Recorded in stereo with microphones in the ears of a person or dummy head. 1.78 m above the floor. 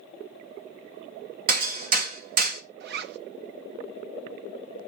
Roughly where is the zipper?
Right.